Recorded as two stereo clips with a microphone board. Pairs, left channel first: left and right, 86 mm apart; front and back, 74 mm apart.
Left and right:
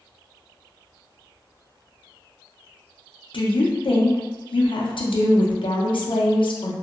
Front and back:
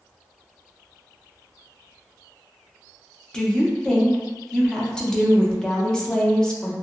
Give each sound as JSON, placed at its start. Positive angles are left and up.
{"t": 3.3, "sound": "a woman speaking", "azimuth_deg": 80, "distance_m": 0.5}